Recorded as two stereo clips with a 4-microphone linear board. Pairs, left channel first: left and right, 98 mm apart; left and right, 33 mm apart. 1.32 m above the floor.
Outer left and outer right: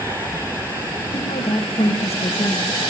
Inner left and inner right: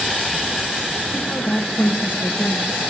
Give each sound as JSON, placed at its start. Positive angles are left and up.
{"t": 1.1, "sound": "a woman speaking", "side_deg": 70, "distance_m": 2.0}